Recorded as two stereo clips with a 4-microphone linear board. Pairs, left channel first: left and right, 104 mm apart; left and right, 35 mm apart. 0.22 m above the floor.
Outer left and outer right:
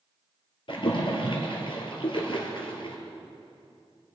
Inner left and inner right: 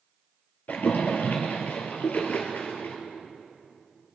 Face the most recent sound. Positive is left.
turn(degrees=55)  # may be behind; listen again after turning